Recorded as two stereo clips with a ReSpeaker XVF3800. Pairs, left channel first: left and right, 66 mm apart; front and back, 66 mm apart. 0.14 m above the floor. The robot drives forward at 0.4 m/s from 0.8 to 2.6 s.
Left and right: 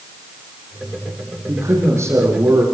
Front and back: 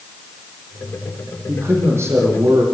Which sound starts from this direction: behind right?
A man speaking, at 1.5 s.